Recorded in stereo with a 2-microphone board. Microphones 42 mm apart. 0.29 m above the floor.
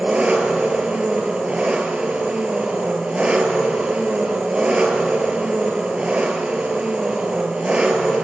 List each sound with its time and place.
0.0 s an engine running: 30° right (ahead or behind), 1.6 m